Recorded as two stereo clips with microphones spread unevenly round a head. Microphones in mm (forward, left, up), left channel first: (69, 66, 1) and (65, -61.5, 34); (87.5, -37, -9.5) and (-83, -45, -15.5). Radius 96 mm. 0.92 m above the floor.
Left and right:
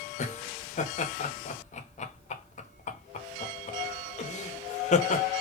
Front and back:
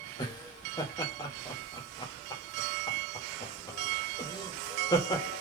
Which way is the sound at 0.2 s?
75° left.